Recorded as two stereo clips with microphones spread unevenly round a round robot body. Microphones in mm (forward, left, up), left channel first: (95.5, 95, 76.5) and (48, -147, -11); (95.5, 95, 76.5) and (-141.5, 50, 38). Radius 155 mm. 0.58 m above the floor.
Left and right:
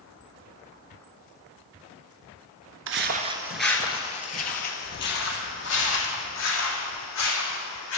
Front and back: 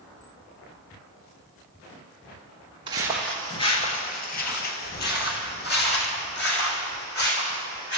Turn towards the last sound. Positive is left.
turn(degrees=55)